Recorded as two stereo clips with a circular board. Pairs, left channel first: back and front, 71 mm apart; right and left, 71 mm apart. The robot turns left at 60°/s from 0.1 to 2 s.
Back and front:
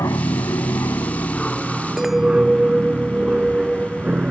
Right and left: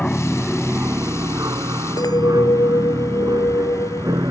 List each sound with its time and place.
0.0 s an aircraft: 165° right; by 4.3 s 70° left
2.0 s a clink: 85° right